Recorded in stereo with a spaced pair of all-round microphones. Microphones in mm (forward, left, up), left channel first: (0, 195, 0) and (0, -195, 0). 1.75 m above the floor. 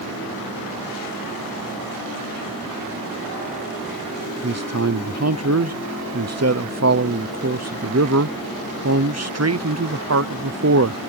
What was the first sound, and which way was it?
A man speaking, 45° right (ahead or behind).